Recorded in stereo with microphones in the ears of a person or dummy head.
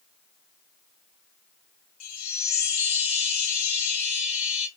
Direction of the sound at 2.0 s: 80° left.